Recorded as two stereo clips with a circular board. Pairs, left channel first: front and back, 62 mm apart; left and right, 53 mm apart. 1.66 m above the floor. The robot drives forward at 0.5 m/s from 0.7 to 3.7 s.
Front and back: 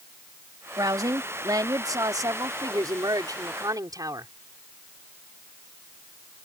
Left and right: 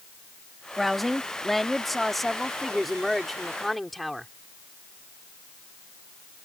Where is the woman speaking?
Straight behind.